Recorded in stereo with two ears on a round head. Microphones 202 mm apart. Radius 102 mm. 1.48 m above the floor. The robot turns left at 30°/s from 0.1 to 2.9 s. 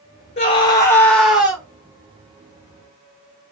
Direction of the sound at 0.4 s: 25° left.